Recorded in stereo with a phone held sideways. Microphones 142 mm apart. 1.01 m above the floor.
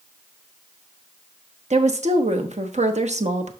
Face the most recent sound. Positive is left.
turn(degrees=-55)  # may be behind; listen again after turning